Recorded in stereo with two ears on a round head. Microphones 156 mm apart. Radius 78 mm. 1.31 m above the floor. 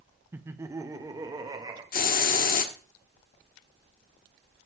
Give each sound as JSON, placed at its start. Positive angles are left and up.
{"t": 0.3, "sound": "laughter", "side_deg": -10, "distance_m": 0.7}
{"t": 1.9, "sound": "a hiss", "side_deg": 50, "distance_m": 1.2}